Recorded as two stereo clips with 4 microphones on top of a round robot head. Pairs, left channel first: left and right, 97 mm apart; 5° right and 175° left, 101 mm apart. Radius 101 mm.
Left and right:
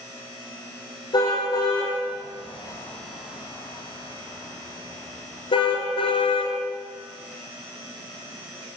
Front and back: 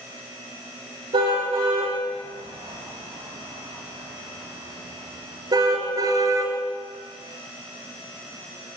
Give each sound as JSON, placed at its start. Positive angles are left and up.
{"t": 1.1, "sound": "a car horn", "azimuth_deg": 130, "distance_m": 8.0}